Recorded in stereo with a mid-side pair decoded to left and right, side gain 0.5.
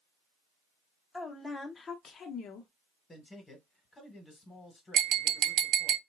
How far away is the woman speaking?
About 1.1 m.